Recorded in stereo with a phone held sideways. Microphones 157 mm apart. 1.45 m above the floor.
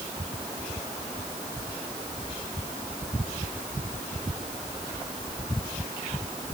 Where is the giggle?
I don't hear a giggle.